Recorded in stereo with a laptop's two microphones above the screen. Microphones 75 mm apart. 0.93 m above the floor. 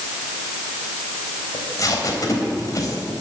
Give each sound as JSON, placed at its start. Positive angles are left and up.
{"t": 1.5, "sound": "tape being pulled", "side_deg": 45, "distance_m": 3.5}